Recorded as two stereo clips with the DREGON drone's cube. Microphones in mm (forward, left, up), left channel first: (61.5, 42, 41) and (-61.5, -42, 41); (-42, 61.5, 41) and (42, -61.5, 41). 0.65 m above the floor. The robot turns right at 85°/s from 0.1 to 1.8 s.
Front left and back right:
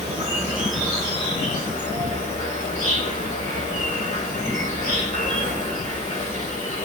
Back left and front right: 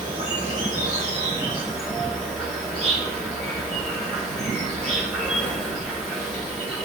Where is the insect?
110° right, 1.2 m; by 6.9 s 35° left, 1.2 m.